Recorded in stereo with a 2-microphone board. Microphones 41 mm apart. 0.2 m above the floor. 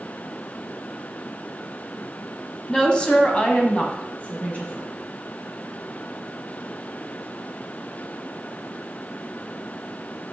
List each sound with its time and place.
2.7 s a woman speaking: 15° left (ahead or behind), 1.4 m; by 4.9 s 30° left (ahead or behind), 2 m